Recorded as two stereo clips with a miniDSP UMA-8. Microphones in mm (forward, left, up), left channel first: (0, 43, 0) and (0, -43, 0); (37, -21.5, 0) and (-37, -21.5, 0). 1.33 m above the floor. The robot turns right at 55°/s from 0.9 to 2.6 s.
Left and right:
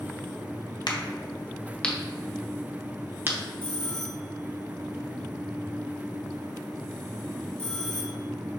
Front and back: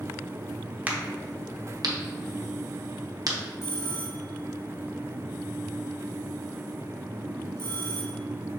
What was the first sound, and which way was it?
A crack, 115° left.